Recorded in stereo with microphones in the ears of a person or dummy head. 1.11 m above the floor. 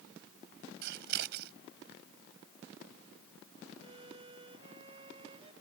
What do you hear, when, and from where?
0.8 s scissors: 55° right (ahead or behind)
3.8 s a violin: 25° right (ahead or behind)